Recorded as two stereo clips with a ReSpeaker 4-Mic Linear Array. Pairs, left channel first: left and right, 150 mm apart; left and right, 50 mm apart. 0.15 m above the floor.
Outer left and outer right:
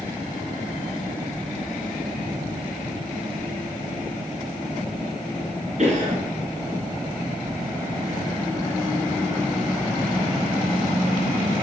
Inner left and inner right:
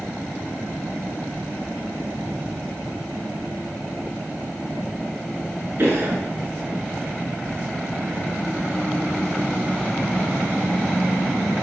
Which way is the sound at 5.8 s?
50° right (ahead or behind).